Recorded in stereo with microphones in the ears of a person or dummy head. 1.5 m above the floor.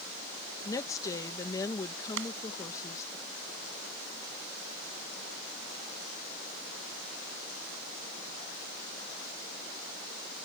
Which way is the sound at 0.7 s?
20° left (ahead or behind).